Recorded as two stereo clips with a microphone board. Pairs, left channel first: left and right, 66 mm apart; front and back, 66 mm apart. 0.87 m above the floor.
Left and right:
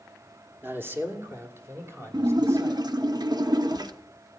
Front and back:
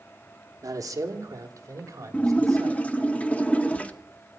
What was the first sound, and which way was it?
A man speaking, 145° right.